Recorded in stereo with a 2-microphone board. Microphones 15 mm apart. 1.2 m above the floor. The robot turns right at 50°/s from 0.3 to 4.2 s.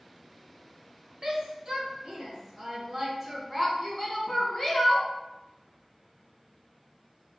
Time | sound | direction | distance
1.2 | a shout | 65° right (ahead or behind) | 1.2 m